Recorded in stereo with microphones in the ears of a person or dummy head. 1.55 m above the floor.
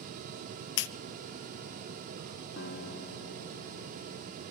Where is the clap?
60° left (ahead or behind), 1.2 m.